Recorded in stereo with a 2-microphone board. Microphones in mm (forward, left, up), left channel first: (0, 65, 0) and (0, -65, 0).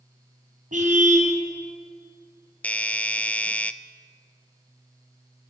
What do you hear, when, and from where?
0.7 s a car horn: 80° right, 5.5 m
2.6 s a doorbell: 10° left (ahead or behind), 0.8 m